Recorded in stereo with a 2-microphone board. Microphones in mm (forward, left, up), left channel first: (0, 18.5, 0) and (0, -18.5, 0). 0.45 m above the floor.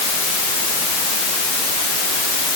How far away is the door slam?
No door slam in this recording.